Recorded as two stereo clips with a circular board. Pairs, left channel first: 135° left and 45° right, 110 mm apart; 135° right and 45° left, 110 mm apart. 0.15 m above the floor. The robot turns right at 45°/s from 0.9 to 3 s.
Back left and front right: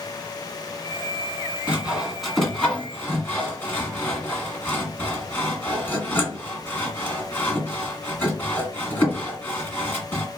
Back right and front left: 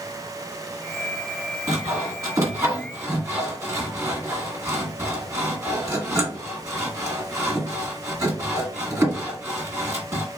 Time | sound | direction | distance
1.7 | sawing | 20° left | 1.7 m